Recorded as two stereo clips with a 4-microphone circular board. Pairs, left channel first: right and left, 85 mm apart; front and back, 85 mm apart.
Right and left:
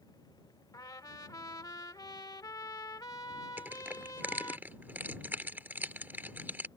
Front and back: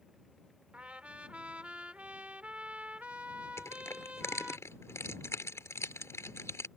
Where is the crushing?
35° left.